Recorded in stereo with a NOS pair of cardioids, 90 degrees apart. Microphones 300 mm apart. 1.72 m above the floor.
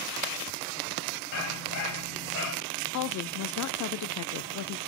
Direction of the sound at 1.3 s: 65° left.